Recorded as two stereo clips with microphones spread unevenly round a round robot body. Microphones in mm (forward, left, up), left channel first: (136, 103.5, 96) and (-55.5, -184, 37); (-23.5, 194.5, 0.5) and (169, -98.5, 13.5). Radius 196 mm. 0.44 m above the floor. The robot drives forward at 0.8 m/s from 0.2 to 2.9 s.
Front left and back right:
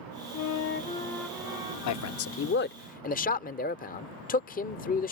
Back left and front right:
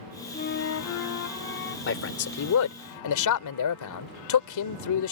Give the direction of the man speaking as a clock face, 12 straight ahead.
9 o'clock.